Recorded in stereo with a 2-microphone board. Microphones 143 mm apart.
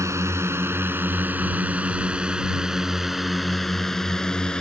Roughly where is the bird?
I don't hear a bird.